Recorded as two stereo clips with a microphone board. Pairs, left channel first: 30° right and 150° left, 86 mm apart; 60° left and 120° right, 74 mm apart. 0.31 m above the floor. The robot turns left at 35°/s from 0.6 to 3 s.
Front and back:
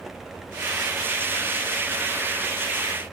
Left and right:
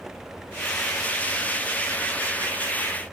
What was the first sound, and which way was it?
Only background noise.